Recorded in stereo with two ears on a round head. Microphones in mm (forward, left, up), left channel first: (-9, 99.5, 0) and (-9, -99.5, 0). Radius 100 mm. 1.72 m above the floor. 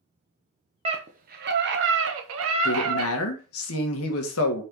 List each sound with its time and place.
0.8 s a scream: 25° right (ahead or behind), 0.9 m; by 3.1 s 75° right (ahead or behind), 1.7 m
2.6 s a woman speaking: 70° left (ahead or behind), 1.8 m